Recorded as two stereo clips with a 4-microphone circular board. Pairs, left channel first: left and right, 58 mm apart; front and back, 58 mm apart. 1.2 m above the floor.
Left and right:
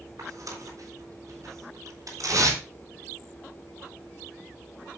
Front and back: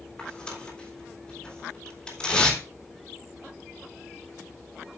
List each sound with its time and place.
0.2 s tearing paper: 80° right, 3.5 m